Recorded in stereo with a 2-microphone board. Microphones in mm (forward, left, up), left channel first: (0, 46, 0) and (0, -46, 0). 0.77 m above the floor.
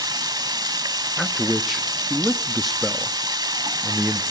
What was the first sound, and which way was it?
Running water, 45° right (ahead or behind).